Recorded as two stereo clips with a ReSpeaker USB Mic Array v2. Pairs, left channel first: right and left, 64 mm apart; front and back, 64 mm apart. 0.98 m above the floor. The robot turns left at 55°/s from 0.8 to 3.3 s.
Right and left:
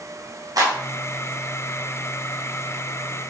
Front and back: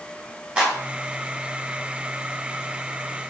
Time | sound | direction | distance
0.6 | a clap | 110° left | 5.5 m